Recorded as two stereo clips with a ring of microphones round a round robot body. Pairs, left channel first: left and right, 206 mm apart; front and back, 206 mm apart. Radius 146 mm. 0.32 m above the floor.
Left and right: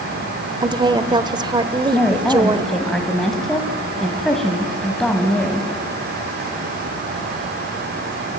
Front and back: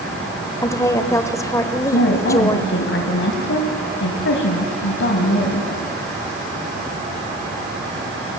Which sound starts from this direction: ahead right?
A woman speaking, at 0.6 s.